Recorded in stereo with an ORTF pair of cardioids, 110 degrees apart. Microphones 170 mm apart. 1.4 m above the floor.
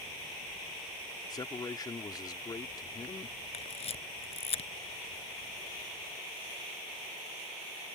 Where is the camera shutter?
35° left.